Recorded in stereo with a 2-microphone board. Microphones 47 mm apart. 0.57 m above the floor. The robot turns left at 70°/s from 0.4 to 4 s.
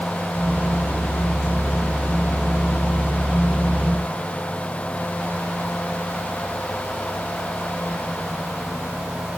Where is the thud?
I don't hear a thud.